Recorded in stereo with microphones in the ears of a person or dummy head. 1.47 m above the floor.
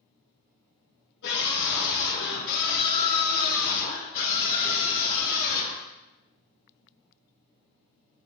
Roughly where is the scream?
Left.